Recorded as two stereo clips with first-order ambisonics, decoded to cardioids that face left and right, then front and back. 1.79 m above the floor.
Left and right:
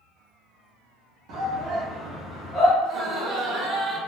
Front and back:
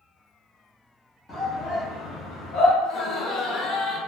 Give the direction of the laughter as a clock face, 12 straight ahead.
1 o'clock.